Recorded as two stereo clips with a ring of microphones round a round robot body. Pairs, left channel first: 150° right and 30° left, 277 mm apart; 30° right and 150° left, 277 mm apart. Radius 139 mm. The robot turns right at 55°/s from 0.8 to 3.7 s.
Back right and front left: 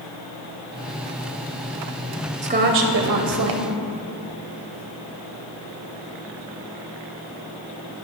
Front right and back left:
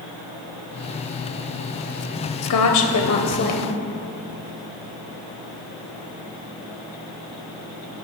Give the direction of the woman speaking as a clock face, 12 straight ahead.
1 o'clock.